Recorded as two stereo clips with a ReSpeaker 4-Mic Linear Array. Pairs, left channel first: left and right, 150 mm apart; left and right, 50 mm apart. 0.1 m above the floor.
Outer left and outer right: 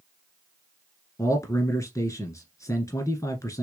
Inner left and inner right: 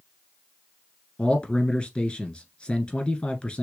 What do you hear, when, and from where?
1.2 s a man speaking: 20° left (ahead or behind), 1.4 m